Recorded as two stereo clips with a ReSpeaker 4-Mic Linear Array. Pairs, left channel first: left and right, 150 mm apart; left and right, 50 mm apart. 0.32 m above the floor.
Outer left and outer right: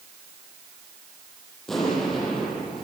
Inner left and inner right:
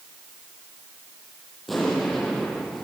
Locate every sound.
1.7 s an explosion: centre (ahead or behind), 8.5 m